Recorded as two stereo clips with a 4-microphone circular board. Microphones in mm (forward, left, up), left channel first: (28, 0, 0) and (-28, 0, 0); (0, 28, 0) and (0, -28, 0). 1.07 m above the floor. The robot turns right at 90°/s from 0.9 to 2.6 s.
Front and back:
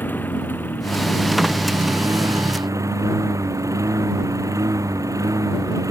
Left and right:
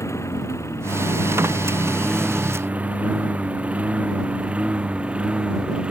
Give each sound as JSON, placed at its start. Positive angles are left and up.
{"t": 0.0, "sound": "a lawn mower", "azimuth_deg": 55}